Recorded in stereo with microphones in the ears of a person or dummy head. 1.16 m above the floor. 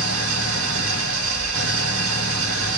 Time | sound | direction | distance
0.0 | an engine running | 85° right | 1.2 m